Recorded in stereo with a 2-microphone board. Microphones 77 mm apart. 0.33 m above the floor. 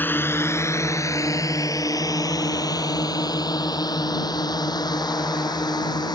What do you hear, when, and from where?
0.0 s a drone: 25° left (ahead or behind); by 6.2 s 65° left (ahead or behind)